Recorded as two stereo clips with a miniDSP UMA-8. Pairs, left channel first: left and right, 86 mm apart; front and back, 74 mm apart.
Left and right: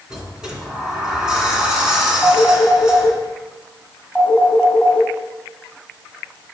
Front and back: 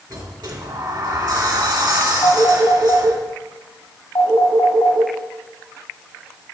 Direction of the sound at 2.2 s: 5° right.